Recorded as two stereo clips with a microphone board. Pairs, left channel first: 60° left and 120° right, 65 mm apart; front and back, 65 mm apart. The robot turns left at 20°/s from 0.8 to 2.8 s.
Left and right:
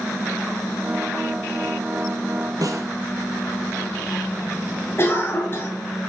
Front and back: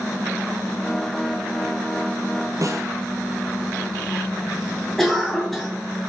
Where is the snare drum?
145° right, 1.2 m; by 2.9 s 150° right, 1.2 m.